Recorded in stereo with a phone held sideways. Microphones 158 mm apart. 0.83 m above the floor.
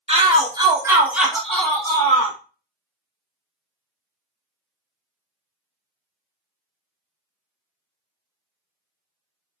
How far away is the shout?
About 1.2 m.